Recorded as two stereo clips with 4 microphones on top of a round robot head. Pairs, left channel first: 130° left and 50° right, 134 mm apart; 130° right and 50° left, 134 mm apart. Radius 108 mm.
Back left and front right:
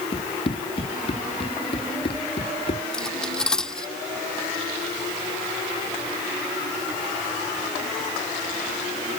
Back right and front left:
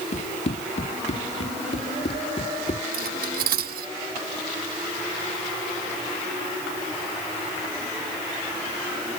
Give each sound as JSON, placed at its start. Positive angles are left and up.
{"t": 0.1, "sound": "running footsteps", "azimuth_deg": -175}
{"t": 2.9, "sound": "cutlery clinking", "azimuth_deg": 45}